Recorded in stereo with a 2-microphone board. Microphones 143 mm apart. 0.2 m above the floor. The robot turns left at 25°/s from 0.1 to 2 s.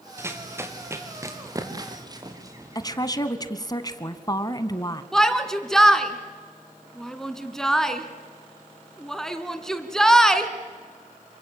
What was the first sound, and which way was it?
Running footsteps, 15° right (ahead or behind).